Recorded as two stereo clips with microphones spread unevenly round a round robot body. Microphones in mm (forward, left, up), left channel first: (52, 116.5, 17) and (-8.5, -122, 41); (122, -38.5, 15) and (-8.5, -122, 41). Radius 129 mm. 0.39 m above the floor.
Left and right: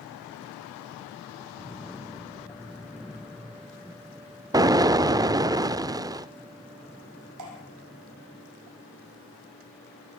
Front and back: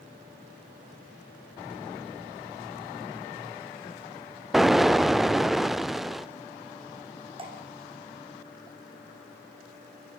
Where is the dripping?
95° right, 5.5 m.